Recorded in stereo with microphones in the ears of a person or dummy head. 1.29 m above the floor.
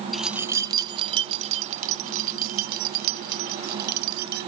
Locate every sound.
0.1 s keys jangling: 10° left (ahead or behind); by 4.5 s 45° right (ahead or behind)